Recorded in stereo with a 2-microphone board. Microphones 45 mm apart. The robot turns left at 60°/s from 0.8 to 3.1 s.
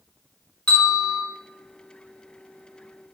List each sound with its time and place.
0.7 s a bell: 25° left (ahead or behind), 1.1 m; by 1.2 s 20° left (ahead or behind), 1.1 m